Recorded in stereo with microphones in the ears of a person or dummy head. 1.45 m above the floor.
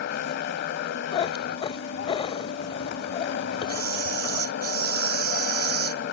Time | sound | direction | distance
0.0 | a motorcycle | 60° left (ahead or behind) | ?
1.1 | a cat meowing | 30° left (ahead or behind) | ?
3.7 | a camera shutter | 45° right (ahead or behind) | ?